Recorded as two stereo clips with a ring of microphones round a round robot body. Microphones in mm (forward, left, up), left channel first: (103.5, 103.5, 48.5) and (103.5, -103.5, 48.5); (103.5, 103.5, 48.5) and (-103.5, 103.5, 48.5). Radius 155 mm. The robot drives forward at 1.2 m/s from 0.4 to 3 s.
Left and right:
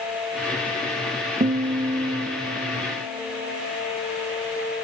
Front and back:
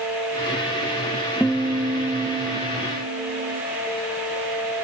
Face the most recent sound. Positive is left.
turn(degrees=-165)